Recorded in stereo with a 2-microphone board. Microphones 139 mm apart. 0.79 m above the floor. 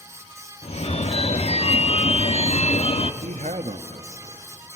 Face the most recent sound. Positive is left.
turn(degrees=-55)  # may be behind; listen again after turning